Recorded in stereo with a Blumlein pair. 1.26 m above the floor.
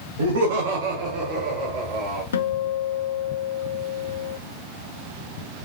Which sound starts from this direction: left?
A guitar, at 2.3 s.